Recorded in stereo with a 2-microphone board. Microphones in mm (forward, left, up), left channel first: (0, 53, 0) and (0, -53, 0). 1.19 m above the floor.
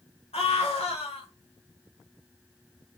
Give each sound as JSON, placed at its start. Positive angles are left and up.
{"t": 0.3, "sound": "a scream", "side_deg": 75, "distance_m": 1.3}